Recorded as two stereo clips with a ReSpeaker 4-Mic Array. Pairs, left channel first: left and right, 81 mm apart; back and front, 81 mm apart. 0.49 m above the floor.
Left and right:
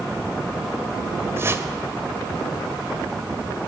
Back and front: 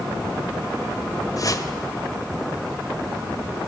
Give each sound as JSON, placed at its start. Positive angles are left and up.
{"t": 1.4, "sound": "a whoosh", "azimuth_deg": -145, "distance_m": 2.0}